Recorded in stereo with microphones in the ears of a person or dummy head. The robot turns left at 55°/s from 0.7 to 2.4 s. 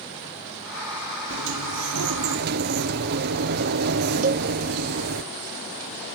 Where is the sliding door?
60° right, 0.8 m; by 5.2 s 120° right, 0.8 m.